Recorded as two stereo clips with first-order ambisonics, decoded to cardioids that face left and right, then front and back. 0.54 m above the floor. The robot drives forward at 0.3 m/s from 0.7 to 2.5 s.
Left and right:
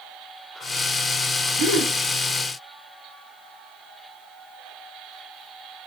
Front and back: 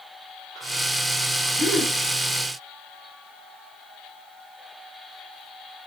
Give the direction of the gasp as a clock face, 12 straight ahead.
3 o'clock.